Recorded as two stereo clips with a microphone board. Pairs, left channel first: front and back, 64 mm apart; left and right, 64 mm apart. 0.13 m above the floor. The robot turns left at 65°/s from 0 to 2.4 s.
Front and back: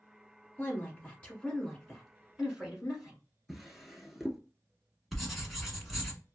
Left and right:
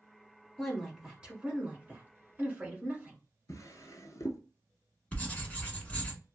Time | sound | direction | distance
0.6 | a woman speaking | straight ahead | 1.3 m
3.5 | a drawer | 90° left | 0.6 m
5.1 | writing | 90° left | 1.1 m